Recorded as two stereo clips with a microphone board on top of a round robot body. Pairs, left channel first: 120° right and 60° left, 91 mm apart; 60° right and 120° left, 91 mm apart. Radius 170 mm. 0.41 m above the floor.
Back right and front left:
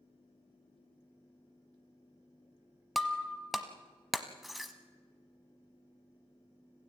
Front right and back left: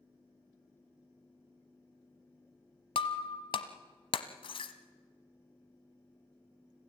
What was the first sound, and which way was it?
Breaking glass, 30° right.